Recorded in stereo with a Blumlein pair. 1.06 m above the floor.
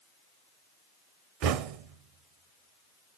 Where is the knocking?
40° right, 0.5 m.